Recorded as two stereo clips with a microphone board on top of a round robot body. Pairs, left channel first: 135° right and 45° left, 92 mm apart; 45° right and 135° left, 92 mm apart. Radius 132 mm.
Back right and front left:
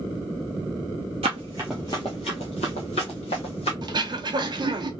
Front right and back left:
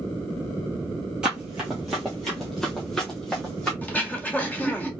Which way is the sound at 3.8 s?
25° left.